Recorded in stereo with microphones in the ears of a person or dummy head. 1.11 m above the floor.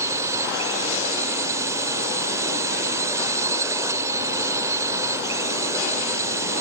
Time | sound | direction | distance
0.0 | a drone | 15° right (ahead or behind) | ?